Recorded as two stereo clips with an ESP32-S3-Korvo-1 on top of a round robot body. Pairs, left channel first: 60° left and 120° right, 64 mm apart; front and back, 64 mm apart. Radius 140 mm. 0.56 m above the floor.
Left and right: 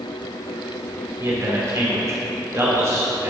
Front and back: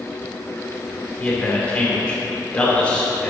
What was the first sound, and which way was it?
A man speaking, 75° right.